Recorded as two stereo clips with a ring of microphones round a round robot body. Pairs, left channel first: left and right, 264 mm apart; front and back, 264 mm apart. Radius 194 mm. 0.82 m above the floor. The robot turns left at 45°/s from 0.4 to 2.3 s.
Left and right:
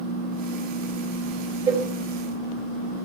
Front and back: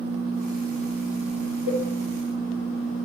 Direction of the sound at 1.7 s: 15° right.